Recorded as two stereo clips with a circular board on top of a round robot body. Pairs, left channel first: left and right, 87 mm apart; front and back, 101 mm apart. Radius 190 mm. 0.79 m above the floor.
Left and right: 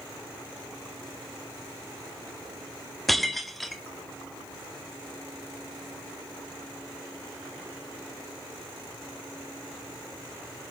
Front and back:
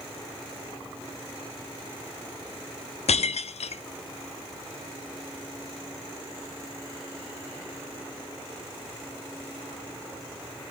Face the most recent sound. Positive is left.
turn(degrees=0)